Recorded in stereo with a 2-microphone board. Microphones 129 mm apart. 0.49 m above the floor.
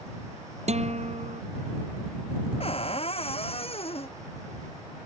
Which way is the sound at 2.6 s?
50° left (ahead or behind).